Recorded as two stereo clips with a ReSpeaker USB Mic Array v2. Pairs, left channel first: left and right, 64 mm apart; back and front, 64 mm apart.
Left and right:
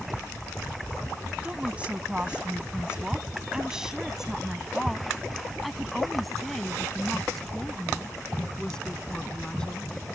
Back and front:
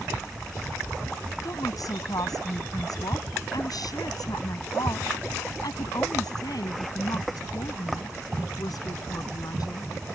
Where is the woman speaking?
160° right; by 9.9 s 165° left.